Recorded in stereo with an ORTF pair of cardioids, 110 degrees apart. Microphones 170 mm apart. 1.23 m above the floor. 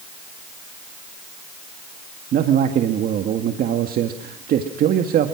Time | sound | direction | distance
2.3 | a man speaking | 60° right | 2.0 m